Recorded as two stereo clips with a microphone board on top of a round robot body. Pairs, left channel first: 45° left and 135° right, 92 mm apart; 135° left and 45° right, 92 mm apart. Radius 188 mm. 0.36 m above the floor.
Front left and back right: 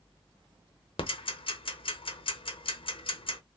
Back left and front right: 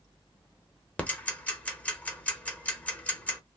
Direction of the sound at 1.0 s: 60° left.